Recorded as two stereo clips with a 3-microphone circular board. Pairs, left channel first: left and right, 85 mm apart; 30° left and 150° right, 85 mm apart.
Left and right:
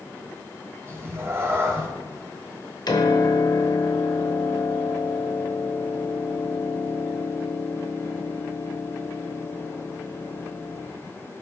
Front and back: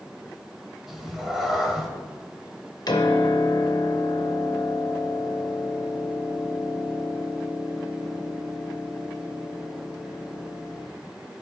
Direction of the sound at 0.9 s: 70° right.